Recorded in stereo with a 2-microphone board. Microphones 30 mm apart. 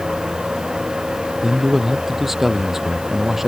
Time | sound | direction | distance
1.4 | a man speaking | 10° right (ahead or behind) | ?